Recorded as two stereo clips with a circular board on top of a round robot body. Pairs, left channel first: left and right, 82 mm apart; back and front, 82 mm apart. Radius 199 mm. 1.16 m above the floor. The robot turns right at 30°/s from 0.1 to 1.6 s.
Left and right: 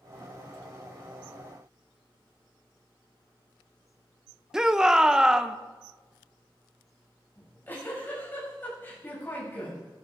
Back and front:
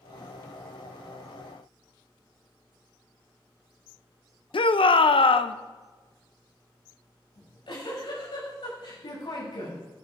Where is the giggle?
155° left, 7 m.